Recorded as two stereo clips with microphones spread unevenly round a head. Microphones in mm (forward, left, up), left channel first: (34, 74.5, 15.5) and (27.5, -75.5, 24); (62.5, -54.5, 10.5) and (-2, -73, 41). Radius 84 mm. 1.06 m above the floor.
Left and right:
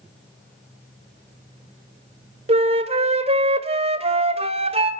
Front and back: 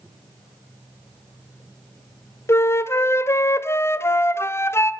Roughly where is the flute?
Ahead right.